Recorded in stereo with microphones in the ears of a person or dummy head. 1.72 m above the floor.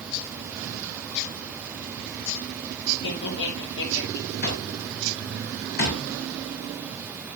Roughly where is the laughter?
Left.